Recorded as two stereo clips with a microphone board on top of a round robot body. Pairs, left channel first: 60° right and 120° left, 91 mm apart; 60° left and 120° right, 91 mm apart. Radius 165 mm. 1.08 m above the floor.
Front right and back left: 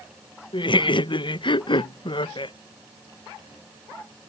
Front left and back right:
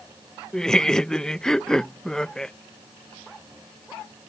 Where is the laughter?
25° right.